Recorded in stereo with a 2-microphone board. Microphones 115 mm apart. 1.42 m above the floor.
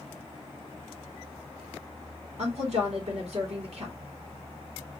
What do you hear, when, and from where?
2.4 s a woman speaking: 65° right (ahead or behind), 2.5 m